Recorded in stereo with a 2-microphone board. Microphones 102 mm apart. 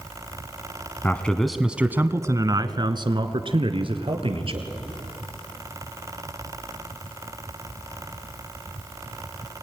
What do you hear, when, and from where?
1.0 s a man speaking: 20° left (ahead or behind), 1.2 m; by 4.7 s 60° right (ahead or behind), 3 m